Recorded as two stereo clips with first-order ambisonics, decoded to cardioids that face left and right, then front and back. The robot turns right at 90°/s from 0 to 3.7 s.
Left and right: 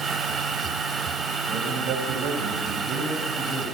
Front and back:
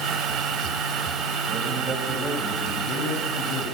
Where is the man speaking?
145° right, 5 m; by 3.6 s 50° left, 5 m.